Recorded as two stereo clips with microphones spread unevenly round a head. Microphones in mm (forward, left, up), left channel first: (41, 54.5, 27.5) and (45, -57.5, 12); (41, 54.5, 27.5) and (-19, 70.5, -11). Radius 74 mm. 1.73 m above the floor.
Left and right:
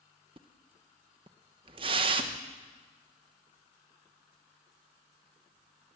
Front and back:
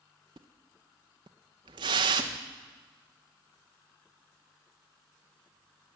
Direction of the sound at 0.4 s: 140° right.